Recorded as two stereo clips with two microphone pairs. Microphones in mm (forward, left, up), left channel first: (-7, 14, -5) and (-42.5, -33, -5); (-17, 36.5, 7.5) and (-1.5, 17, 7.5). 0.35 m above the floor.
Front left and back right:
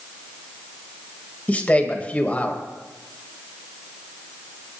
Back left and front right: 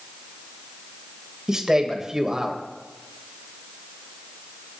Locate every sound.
1.5 s a man speaking: 5° left, 1.9 m